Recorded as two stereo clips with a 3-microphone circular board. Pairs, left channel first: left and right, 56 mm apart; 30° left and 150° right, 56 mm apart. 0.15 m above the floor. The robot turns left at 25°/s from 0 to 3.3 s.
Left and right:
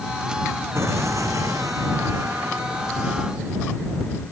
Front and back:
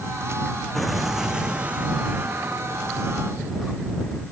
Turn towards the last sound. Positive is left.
turn(degrees=-120)